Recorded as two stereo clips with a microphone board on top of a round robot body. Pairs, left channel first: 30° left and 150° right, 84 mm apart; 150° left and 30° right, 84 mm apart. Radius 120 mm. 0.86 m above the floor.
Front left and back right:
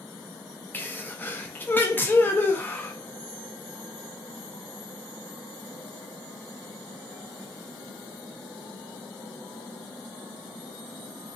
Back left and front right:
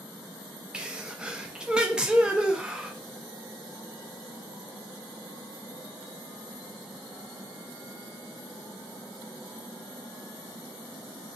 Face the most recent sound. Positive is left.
turn(degrees=35)